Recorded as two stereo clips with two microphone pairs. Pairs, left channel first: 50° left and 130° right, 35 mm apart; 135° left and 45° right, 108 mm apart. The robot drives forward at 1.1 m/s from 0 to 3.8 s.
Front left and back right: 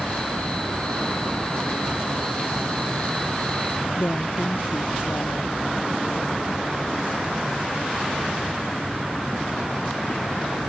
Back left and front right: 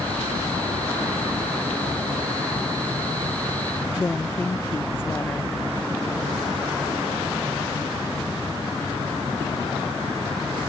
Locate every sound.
4.0 s a woman speaking: 65° left